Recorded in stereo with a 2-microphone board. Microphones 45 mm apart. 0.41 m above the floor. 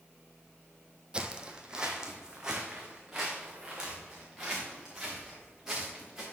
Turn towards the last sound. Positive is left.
turn(degrees=-10)  # may be behind; listen again after turning